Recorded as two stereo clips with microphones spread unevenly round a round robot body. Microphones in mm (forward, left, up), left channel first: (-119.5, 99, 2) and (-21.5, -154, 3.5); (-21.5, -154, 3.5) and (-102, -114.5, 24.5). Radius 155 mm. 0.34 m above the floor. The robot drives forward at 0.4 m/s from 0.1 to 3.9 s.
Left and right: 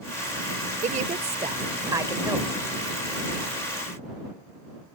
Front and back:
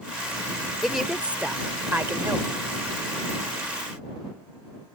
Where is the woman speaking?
90° right; by 2.6 s 150° right.